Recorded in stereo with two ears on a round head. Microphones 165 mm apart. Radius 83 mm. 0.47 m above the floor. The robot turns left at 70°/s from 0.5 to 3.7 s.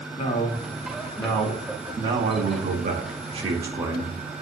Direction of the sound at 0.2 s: 75° left.